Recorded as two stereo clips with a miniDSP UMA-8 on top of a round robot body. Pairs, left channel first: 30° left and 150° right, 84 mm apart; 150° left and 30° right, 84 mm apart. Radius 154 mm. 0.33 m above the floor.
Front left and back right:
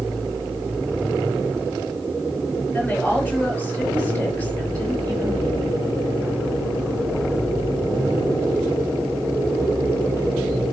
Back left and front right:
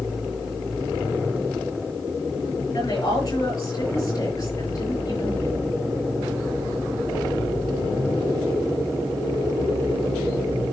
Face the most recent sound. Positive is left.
turn(degrees=105)